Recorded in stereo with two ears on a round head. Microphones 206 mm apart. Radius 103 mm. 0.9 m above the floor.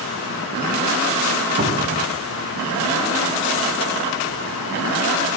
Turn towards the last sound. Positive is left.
turn(degrees=-35)  # may be behind; listen again after turning